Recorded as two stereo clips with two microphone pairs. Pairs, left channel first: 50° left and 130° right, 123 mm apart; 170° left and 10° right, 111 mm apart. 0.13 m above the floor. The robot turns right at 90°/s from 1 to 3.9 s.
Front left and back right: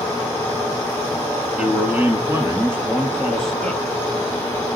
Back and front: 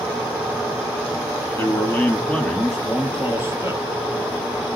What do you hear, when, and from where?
1.6 s a man speaking: 160° left, 1.3 m; by 3.8 s 5° left, 1.3 m